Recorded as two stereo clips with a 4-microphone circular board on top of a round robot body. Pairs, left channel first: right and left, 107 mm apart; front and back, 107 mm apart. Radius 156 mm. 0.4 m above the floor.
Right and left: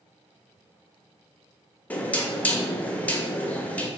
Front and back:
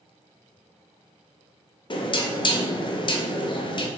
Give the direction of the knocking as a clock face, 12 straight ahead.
1 o'clock.